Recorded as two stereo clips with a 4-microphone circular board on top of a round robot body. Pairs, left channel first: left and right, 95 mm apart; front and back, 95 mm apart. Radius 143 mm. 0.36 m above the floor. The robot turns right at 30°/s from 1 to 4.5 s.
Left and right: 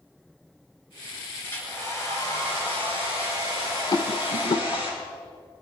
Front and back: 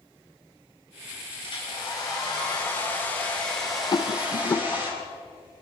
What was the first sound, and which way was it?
A hair dryer, 20° left.